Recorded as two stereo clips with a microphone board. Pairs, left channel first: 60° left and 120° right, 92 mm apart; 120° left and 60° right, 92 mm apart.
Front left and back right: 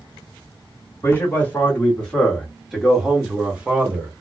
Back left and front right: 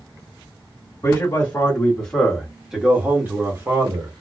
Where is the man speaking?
110° left, 1.4 m; by 4.1 s 60° right, 1.5 m.